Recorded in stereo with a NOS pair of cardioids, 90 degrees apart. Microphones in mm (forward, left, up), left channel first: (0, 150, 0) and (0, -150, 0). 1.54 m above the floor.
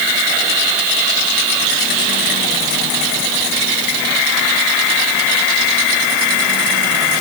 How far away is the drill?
I don't hear a drill.